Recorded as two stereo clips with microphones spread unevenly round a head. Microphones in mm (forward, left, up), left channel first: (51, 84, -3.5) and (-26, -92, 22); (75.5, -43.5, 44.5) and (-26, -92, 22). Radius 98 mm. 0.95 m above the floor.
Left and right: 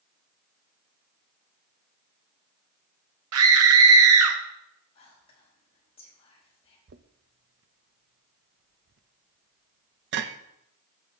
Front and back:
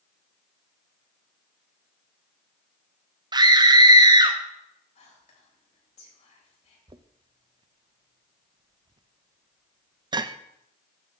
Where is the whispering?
5° left, 6 m.